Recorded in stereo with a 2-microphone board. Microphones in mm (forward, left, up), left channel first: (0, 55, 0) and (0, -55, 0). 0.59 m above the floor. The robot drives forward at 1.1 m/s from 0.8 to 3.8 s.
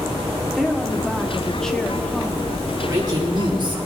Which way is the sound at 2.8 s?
35° right (ahead or behind).